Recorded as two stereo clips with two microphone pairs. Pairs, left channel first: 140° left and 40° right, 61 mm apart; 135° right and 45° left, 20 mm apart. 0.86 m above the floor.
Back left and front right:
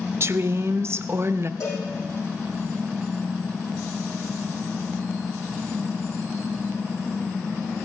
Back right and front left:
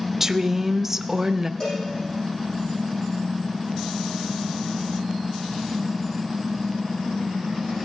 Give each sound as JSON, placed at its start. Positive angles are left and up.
{"t": 0.2, "sound": "a woman speaking", "azimuth_deg": -20, "distance_m": 0.6}
{"t": 1.6, "sound": "a cowbell", "azimuth_deg": 170, "distance_m": 7.5}